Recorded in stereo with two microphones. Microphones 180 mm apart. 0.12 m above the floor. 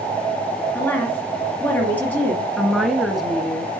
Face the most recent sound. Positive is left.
turn(degrees=0)  # may be behind; listen again after turning